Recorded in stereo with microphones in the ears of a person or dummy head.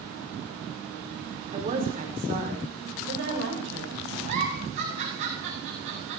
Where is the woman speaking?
30° right (ahead or behind), 3.5 m; by 4.2 s 65° right (ahead or behind), 6.5 m.